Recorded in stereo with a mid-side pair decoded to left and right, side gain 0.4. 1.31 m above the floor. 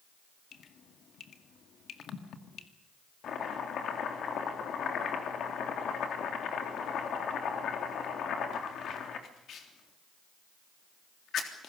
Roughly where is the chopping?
Left.